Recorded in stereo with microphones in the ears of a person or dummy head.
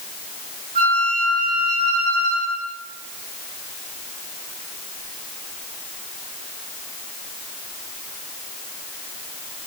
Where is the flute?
50° right (ahead or behind), 2 m.